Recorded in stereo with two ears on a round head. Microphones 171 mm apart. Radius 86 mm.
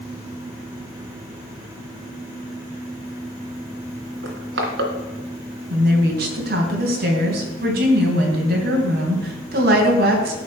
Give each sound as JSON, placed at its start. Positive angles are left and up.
{"t": 4.2, "sound": "crushing", "side_deg": -65, "distance_m": 2.5}
{"t": 5.7, "sound": "a woman speaking", "side_deg": -55, "distance_m": 3.0}